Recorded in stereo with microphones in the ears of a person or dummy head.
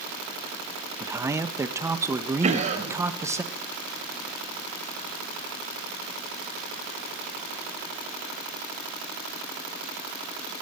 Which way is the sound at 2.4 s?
35° right (ahead or behind).